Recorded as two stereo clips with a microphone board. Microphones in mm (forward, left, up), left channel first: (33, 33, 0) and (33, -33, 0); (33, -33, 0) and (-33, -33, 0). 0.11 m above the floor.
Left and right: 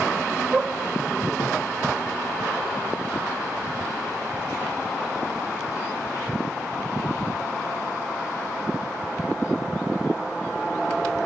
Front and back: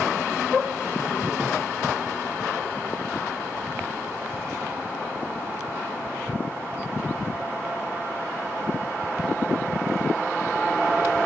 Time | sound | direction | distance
1.4 | a thud | 90° left | 9 m